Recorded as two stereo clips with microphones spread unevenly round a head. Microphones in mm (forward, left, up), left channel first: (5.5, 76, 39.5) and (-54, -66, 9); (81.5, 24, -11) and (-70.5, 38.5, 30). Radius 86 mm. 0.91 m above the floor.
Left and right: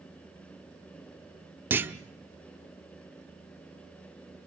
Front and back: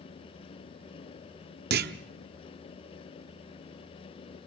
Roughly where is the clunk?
Behind.